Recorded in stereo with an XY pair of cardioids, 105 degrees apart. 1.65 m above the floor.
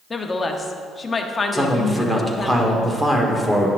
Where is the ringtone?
No ringtone in this recording.